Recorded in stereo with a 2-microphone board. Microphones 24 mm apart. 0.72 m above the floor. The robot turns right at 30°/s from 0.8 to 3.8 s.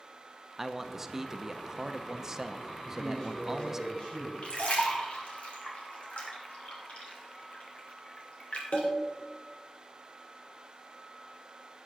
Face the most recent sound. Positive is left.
turn(degrees=65)  # may be behind; listen again after turning